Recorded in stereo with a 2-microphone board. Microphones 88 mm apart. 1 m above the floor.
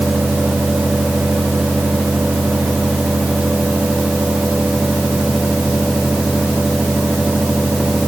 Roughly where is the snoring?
I don't hear snoring.